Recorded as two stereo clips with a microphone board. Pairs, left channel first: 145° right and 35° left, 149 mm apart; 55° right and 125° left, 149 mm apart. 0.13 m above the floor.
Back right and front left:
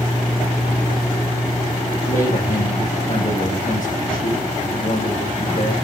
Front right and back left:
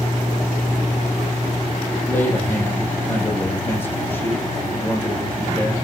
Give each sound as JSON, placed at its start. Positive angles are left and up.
{"t": 2.0, "sound": "a man speaking", "azimuth_deg": -130, "distance_m": 7.5}